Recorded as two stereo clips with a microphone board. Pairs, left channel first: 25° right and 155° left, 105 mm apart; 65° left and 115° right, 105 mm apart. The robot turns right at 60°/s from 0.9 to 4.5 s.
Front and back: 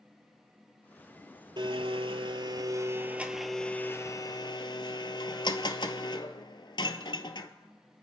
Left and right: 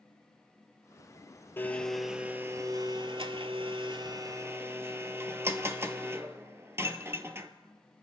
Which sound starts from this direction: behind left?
A blender, at 1.6 s.